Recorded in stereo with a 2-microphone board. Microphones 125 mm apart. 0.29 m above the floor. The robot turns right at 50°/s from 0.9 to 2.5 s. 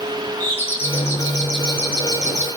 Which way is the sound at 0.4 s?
15° left.